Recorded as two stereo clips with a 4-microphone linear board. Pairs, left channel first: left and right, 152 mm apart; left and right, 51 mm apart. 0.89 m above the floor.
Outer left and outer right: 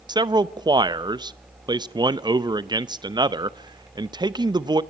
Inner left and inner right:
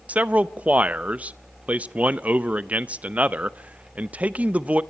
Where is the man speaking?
30° right (ahead or behind), 0.6 m.